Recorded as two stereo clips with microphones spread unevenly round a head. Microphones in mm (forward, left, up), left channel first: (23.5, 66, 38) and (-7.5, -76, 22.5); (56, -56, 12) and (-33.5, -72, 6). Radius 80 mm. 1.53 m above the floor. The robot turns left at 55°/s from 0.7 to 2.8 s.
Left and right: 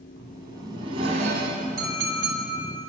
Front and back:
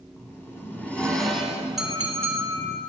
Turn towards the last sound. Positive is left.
turn(degrees=-135)